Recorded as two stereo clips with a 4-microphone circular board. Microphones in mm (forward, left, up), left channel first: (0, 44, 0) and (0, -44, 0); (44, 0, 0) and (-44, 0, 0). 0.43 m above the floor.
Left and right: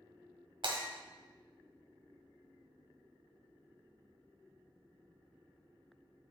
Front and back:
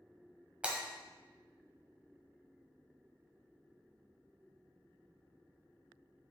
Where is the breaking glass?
105° right, 1.6 m.